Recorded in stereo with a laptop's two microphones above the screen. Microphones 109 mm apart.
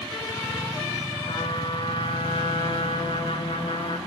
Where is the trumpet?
55° left (ahead or behind), 1.9 m.